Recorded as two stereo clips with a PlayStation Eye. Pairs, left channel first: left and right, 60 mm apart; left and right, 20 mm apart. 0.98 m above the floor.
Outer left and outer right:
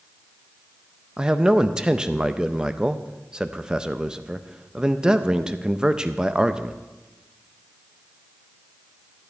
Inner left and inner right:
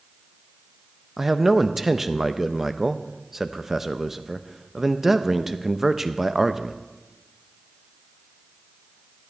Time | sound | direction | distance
1.2 | a man speaking | 15° right (ahead or behind) | 0.5 m